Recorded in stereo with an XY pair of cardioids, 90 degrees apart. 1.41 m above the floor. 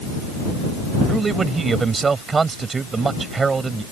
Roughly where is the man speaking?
Ahead right.